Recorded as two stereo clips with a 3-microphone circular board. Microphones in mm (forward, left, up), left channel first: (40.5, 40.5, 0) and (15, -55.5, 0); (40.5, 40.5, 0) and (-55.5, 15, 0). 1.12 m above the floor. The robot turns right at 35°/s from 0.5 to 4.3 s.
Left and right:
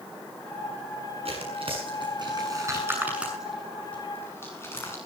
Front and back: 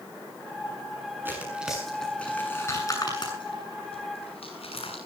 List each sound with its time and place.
1.2 s tearing paper: 95° right, 7.5 m; by 5.0 s 10° left, 7.5 m